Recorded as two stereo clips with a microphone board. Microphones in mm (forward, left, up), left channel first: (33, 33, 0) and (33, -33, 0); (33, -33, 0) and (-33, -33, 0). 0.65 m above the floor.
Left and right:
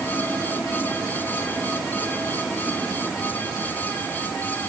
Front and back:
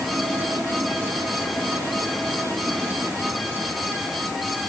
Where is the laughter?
I don't hear laughter.